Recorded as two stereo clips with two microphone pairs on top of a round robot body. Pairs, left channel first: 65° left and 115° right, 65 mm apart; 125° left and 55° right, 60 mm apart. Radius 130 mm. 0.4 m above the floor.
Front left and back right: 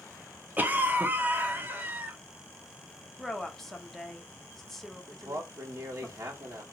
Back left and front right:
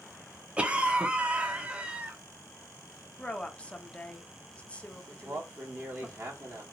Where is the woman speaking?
155° left, 0.9 m.